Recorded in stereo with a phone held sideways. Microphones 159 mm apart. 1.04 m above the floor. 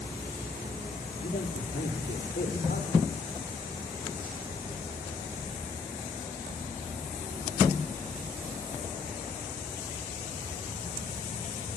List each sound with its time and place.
1.2 s a man speaking: 65° left (ahead or behind), 3 m; by 3.1 s 80° left, 5 m